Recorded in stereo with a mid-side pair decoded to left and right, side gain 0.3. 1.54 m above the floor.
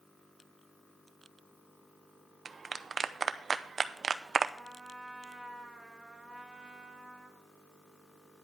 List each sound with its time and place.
2.5 s a clap: 55° right, 0.7 m
4.6 s a trumpet: 15° right, 2 m